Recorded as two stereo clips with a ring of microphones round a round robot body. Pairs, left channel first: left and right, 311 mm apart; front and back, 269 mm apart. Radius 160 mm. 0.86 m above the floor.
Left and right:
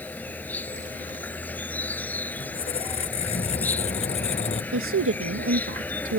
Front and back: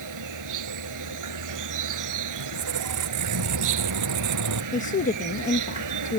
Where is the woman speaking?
55° right.